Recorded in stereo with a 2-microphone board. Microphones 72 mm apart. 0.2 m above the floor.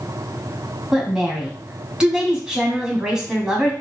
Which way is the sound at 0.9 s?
10° right (ahead or behind).